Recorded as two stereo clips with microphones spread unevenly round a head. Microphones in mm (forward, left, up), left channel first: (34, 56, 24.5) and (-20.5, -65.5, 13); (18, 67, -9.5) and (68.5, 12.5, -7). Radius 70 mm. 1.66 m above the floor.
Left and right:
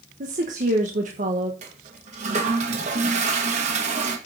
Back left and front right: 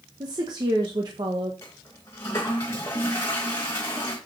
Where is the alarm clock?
No alarm clock in this recording.